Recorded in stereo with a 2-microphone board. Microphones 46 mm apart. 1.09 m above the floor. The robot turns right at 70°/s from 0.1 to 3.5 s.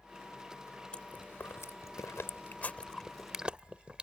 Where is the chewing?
25° left (ahead or behind); by 4.0 s 25° right (ahead or behind).